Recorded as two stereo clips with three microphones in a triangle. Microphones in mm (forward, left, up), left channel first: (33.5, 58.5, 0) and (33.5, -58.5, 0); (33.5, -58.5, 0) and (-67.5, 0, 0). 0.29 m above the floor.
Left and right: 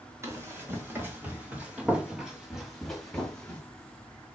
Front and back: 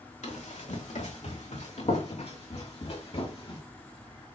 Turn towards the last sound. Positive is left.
turn(degrees=10)